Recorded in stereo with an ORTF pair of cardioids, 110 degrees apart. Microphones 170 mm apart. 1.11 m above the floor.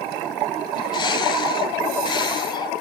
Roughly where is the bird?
Ahead left.